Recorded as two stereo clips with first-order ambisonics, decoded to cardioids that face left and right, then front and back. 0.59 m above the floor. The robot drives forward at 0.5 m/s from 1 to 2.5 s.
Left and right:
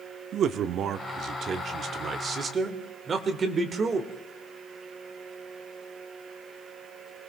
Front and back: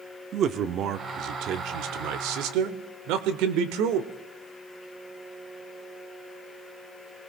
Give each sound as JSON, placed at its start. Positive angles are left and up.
{"t": 0.3, "sound": "a man speaking", "azimuth_deg": -135, "distance_m": 0.9}